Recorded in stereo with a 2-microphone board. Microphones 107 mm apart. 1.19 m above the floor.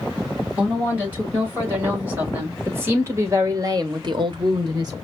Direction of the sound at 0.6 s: 15° right (ahead or behind).